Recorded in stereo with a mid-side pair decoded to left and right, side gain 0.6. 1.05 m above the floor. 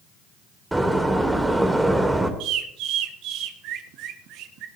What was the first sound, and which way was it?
A door slam, 10° right.